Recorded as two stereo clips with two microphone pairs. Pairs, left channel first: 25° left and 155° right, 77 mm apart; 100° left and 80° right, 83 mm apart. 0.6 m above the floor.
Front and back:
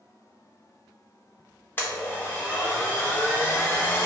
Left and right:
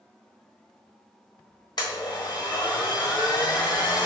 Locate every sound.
1.8 s a blender: 90° left, 1.2 m